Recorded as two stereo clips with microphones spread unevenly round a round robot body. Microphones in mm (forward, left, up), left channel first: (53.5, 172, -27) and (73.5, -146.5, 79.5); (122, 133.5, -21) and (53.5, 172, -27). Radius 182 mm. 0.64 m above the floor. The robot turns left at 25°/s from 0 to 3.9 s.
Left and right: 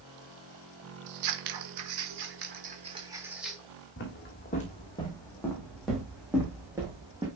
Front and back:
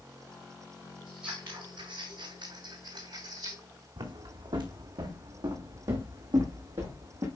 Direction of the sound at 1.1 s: 120° right.